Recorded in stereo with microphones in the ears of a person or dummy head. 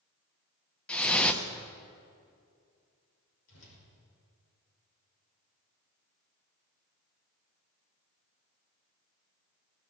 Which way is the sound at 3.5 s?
80° left.